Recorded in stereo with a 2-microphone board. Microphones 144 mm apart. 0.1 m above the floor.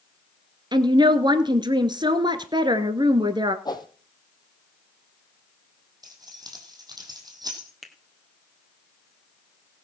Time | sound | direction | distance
0.7 | a woman speaking | 30° right (ahead or behind) | 1.3 m
3.6 | a whoosh | 30° left (ahead or behind) | 1.3 m
6.0 | keys jangling | 25° right (ahead or behind) | 3 m
7.8 | a finger snap | centre (ahead or behind) | 2.0 m